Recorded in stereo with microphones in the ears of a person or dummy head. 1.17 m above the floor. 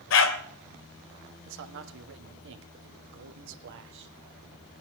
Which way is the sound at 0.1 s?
70° left (ahead or behind).